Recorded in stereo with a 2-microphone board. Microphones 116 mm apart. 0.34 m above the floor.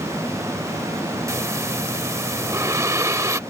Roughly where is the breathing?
Right.